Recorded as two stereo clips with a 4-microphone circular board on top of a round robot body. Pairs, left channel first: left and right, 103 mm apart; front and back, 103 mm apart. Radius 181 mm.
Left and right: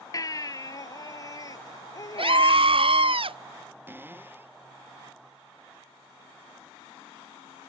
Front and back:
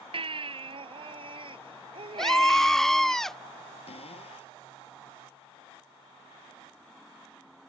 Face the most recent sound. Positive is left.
turn(degrees=-20)